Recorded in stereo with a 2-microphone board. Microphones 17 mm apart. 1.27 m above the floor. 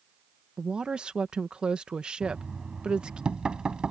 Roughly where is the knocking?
Right.